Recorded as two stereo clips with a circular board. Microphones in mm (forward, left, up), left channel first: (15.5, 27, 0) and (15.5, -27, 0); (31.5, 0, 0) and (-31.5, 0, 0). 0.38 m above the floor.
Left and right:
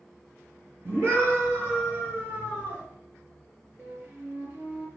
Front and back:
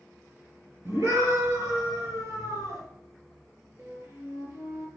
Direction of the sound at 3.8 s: 145° right.